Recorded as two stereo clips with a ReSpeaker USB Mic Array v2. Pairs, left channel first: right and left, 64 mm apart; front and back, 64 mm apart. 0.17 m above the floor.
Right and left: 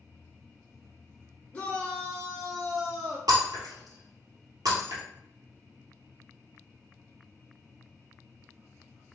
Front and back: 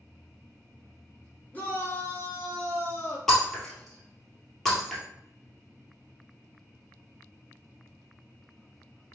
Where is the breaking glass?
85° left, 1.8 m.